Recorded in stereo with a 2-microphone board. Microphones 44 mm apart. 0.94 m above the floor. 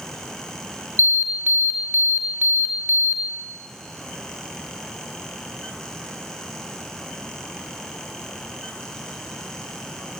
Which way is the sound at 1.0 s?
80° right.